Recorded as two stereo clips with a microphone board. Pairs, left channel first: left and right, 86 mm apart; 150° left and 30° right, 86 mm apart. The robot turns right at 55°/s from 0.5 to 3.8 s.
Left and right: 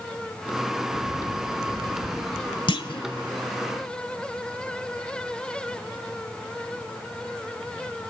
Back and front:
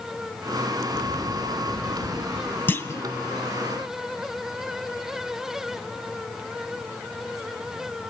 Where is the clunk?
85° left, 0.7 m; by 3.1 s 105° left, 0.7 m.